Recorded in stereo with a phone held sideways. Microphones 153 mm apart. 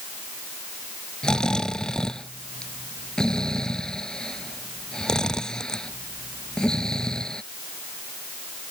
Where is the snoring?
5° left (ahead or behind).